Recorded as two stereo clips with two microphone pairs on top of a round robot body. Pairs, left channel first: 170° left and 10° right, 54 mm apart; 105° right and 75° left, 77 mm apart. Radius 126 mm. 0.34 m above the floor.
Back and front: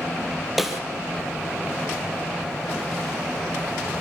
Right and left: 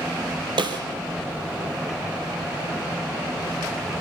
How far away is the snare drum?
About 4 m.